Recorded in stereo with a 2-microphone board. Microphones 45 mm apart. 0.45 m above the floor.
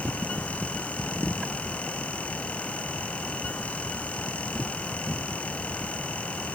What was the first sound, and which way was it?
Only background noise.